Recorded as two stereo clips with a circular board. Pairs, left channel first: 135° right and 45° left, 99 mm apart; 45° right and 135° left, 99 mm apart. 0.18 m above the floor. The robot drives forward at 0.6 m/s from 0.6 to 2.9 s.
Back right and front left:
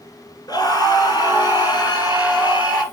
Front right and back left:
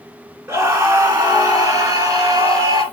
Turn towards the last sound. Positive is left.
turn(degrees=-170)